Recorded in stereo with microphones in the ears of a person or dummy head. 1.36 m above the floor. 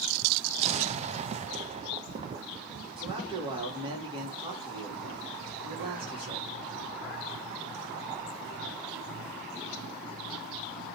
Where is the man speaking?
35° right (ahead or behind), 3 m.